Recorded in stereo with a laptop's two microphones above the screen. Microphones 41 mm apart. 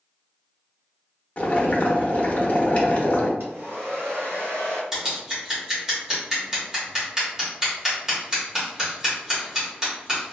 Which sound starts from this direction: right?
A hair dryer, at 3.4 s.